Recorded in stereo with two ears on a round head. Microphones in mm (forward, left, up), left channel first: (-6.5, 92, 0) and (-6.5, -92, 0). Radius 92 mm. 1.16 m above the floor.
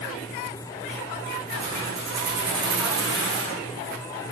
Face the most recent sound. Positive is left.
turn(degrees=-60)  # may be behind; listen again after turning